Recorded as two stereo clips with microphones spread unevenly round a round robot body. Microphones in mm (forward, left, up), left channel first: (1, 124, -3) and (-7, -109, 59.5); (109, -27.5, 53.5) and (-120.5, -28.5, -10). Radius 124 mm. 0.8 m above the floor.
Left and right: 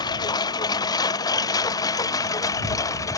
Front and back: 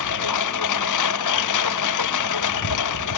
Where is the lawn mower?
15° left; by 3.2 s 10° left.